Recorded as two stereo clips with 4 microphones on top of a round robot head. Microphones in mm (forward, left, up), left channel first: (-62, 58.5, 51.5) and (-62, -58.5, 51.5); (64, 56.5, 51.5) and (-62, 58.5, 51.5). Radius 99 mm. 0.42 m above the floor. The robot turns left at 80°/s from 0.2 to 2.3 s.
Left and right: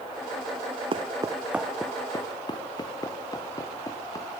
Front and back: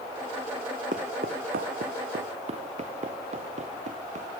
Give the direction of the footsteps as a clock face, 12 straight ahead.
4 o'clock.